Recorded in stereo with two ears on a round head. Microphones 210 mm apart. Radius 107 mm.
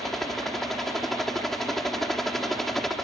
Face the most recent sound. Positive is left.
turn(degrees=0)  # may be behind; listen again after turning